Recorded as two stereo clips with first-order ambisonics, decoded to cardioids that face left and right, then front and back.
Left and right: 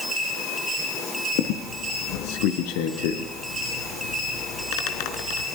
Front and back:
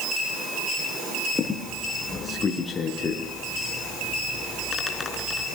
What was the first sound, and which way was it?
A squeak, 75° left.